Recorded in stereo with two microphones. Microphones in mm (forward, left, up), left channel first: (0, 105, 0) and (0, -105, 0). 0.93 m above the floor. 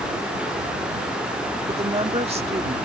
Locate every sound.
1.7 s a woman speaking: 30° right (ahead or behind)